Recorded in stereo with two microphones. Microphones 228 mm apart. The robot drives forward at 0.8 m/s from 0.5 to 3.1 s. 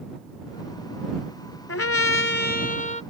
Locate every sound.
1.7 s a trumpet: 65° left (ahead or behind); by 3.0 s 30° left (ahead or behind)